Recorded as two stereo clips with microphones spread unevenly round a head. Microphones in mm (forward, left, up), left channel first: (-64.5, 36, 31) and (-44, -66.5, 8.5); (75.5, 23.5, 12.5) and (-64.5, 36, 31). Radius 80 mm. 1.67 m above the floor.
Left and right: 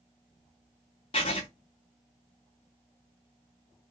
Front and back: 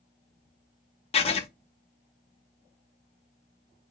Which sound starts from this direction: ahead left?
Writing, at 1.1 s.